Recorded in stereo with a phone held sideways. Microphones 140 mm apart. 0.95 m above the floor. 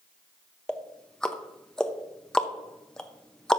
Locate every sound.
0.7 s ticking: 5° left (ahead or behind), 0.7 m